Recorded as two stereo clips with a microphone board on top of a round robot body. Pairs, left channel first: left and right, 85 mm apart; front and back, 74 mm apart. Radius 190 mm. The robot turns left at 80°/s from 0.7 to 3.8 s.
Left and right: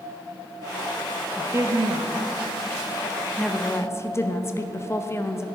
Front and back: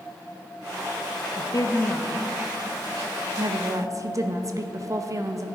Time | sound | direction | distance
1.4 | a woman speaking | 20° right | 1.2 m